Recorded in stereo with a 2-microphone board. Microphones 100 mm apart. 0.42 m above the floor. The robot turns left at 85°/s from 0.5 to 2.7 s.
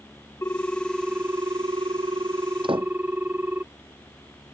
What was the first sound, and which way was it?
A ringtone, 35° left.